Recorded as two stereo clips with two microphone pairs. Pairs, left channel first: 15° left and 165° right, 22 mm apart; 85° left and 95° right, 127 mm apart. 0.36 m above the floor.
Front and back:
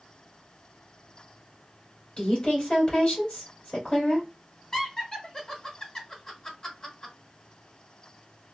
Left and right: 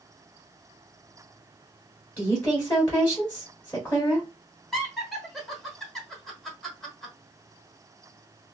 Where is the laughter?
5° left, 1.1 m.